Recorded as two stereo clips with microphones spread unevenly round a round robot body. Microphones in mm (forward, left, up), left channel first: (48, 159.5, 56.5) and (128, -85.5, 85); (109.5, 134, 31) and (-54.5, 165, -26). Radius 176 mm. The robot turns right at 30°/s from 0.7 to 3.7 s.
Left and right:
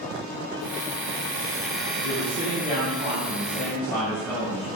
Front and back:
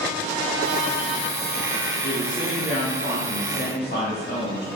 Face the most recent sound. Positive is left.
turn(degrees=25)